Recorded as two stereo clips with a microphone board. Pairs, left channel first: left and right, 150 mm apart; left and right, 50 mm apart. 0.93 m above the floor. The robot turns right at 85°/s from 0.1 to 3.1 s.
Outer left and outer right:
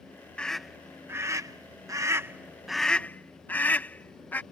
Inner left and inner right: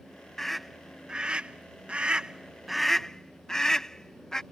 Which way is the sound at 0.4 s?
10° left (ahead or behind).